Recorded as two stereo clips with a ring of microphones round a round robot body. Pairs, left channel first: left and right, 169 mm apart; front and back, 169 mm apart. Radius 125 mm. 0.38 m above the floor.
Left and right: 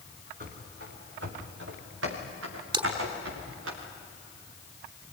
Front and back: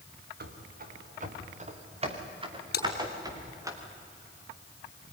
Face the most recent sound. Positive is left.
turn(degrees=-30)